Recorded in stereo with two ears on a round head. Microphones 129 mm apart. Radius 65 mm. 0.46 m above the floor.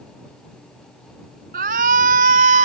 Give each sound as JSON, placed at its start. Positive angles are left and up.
{"t": 1.5, "sound": "a shout", "side_deg": -60}